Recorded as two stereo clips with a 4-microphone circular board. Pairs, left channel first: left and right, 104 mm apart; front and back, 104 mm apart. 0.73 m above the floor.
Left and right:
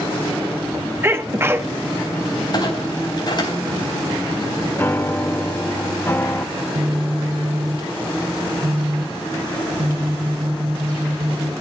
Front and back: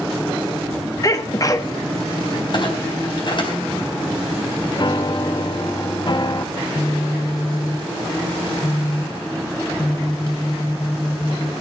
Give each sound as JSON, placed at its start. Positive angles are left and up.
{"t": 1.0, "sound": "a sneeze", "azimuth_deg": -35, "distance_m": 1.2}
{"t": 2.5, "sound": "a clunk", "azimuth_deg": 40, "distance_m": 4.0}
{"t": 4.8, "sound": "a piano", "azimuth_deg": 30, "distance_m": 0.6}
{"t": 6.5, "sound": "a phone buzzing", "azimuth_deg": -60, "distance_m": 1.3}